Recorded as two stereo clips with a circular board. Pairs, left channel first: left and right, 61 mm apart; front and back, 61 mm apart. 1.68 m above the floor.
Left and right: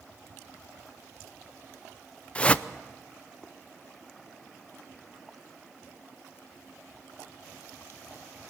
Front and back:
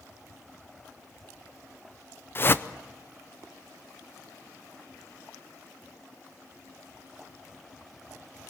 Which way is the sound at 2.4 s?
30° left.